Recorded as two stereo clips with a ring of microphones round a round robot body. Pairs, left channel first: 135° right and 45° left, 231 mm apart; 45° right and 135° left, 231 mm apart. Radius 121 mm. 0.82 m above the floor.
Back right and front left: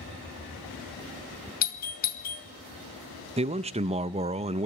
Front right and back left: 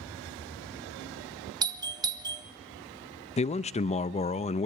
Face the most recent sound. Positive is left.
turn(degrees=0)